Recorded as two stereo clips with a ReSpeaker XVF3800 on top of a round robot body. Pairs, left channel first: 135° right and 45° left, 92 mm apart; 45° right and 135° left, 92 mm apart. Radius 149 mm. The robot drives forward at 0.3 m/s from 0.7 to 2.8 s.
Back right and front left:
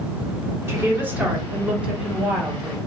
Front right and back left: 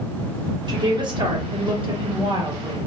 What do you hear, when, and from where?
0.7 s a woman speaking: 105° left, 1.3 m; by 2.8 s 130° left, 1.5 m